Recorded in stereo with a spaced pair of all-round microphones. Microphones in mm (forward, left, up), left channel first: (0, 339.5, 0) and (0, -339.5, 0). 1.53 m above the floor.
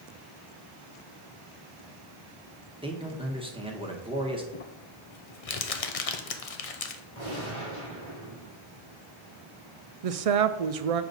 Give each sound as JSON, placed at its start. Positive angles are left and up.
{"t": 2.8, "sound": "a man speaking", "side_deg": -10, "distance_m": 1.1}
{"t": 4.5, "sound": "crumpling", "side_deg": 60, "distance_m": 0.7}
{"t": 7.2, "sound": "a gunshot", "side_deg": 45, "distance_m": 3.0}
{"t": 10.0, "sound": "a woman speaking", "side_deg": -60, "distance_m": 0.6}